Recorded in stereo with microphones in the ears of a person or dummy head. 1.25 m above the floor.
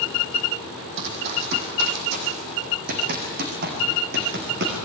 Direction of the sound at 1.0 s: 60° right (ahead or behind).